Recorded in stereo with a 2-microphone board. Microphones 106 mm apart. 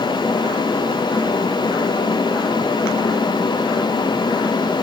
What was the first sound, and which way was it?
Only background noise.